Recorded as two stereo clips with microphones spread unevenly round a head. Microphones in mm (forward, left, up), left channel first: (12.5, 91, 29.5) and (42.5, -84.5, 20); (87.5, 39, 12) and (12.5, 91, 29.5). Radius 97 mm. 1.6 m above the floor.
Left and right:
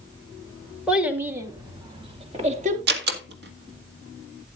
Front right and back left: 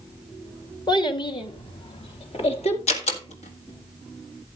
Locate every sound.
0.9 s a child speaking: 5° left, 1.8 m; by 2.8 s 30° right, 2 m
2.9 s a door slam: 50° right, 1.7 m